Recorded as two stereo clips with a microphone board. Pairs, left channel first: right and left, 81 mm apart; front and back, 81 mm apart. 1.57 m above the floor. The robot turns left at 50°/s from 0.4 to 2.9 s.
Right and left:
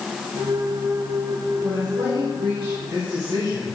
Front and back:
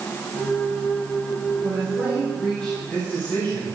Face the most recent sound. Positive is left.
turn(degrees=70)